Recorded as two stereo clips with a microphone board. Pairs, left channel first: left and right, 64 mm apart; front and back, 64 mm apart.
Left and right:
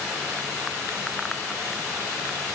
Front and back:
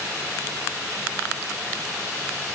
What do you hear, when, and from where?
Only background noise.